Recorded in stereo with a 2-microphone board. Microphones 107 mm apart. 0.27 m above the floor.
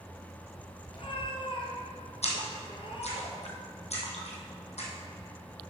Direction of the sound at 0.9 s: 55° left (ahead or behind).